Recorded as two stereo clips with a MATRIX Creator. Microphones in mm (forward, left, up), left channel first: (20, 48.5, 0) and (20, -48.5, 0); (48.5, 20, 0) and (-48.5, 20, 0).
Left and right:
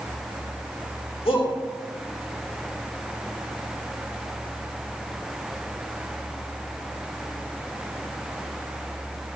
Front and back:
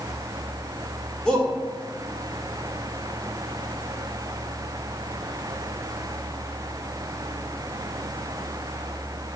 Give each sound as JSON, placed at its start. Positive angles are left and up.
{"t": 1.2, "sound": "a shout", "azimuth_deg": 80, "distance_m": 5.5}